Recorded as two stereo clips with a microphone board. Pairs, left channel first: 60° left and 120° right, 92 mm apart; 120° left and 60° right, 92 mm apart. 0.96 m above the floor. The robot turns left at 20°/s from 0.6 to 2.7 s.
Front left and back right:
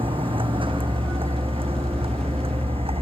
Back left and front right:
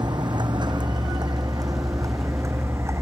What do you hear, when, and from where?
0.0 s a vehicle: 100° right; by 3.0 s 115° right